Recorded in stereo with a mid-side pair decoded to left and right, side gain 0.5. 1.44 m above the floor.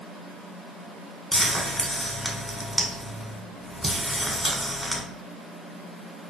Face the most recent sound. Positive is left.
turn(degrees=5)